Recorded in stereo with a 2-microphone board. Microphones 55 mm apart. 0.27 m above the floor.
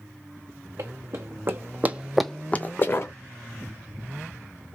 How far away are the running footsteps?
About 1.6 m.